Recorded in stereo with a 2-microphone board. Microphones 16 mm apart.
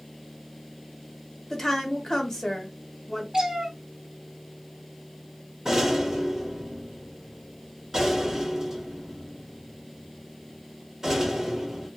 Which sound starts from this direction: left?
A woman speaking, at 1.5 s.